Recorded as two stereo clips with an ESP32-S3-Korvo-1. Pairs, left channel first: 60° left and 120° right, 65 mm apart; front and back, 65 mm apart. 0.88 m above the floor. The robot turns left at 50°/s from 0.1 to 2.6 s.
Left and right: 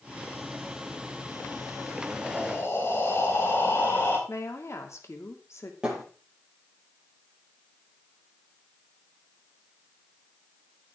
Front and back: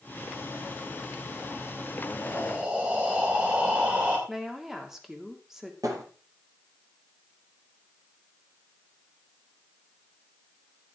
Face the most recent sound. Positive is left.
turn(degrees=165)